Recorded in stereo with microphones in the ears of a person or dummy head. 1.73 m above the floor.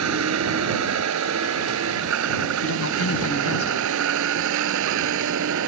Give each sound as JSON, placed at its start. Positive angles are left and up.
{"t": 0.0, "sound": "a vehicle", "side_deg": -80}
{"t": 2.6, "sound": "a man speaking", "side_deg": 75}